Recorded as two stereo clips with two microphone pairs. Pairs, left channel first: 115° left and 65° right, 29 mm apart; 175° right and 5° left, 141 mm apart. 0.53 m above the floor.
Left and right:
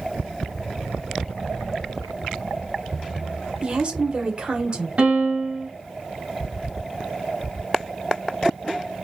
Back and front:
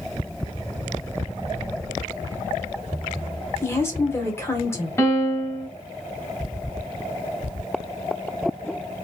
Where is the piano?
100° right, 2.5 m.